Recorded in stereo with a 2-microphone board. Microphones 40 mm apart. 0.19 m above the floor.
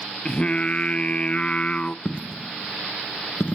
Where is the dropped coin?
40° left (ahead or behind), 0.7 m.